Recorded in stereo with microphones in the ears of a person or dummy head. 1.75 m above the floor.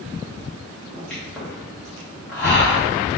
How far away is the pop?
About 1.2 m.